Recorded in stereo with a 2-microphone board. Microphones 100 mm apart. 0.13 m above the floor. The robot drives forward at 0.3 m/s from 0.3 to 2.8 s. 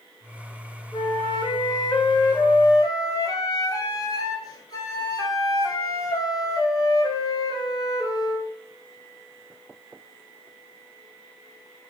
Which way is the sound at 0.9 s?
45° left (ahead or behind).